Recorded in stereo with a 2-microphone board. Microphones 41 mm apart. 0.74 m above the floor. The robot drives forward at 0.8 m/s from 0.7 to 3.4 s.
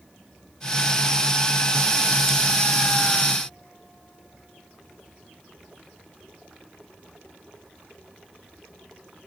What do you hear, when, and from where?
Only background noise.